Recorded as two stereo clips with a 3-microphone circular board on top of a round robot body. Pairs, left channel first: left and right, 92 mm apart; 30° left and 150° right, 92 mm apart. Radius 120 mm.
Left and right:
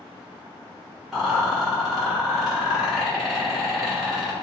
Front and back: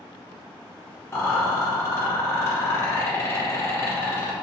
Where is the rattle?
10° right, 1.4 m.